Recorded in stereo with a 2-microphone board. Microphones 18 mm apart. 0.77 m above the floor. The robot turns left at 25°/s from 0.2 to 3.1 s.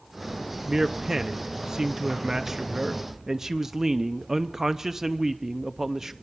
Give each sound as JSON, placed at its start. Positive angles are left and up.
{"t": 0.7, "sound": "a man speaking", "azimuth_deg": -65, "distance_m": 0.7}